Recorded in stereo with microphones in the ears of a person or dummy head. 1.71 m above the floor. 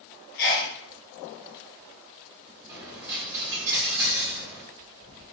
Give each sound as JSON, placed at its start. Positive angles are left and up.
{"t": 0.4, "sound": "a sneeze", "side_deg": 55, "distance_m": 0.8}
{"t": 2.7, "sound": "a dropped coin", "side_deg": -15, "distance_m": 1.3}